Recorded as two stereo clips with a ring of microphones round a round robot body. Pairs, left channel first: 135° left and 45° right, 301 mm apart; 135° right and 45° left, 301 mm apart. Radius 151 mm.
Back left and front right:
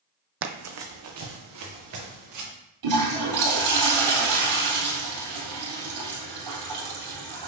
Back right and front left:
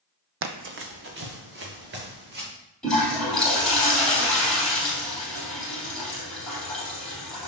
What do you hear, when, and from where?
0.4 s running footsteps: straight ahead, 0.7 m; by 2.5 s 10° right, 3.5 m
2.8 s a toilet flushing: 45° right, 3.5 m